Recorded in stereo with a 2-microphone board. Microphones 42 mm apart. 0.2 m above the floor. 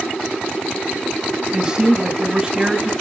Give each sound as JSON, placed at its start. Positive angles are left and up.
{"t": 1.5, "sound": "a man speaking", "side_deg": -20, "distance_m": 1.2}